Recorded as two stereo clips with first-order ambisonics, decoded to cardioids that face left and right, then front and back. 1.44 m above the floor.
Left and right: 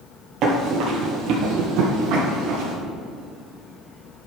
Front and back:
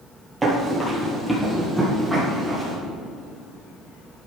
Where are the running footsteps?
110° right, 1.9 m; by 2.8 s 90° right, 3 m.